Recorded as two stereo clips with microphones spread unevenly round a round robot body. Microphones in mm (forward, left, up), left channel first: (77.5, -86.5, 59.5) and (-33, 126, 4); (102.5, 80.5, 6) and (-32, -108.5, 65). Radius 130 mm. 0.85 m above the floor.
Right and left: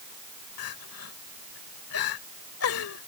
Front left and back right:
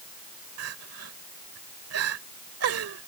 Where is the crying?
100° right.